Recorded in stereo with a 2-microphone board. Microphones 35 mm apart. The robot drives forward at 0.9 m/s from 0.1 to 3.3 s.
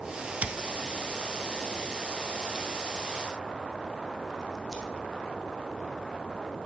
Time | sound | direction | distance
0.4 | scissors | 45° right (ahead or behind) | 0.8 m